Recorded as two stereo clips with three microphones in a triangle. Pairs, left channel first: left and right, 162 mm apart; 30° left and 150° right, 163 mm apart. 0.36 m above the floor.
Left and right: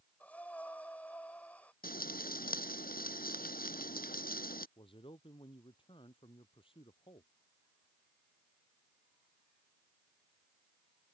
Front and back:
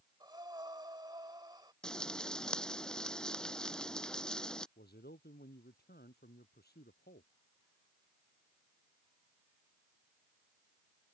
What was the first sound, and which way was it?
Breathing, 165° left.